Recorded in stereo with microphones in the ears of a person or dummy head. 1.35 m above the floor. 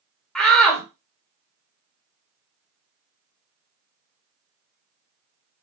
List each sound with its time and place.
0.3 s a shout: 5° left (ahead or behind), 1.1 m